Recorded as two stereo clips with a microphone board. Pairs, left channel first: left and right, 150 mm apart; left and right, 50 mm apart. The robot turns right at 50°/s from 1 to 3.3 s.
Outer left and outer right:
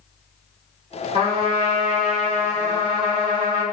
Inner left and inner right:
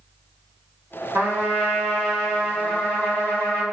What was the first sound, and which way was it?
A trumpet, 50° right.